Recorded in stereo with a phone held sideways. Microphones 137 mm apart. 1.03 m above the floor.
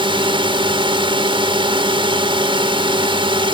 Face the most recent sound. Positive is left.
turn(degrees=-35)  # may be behind; listen again after turning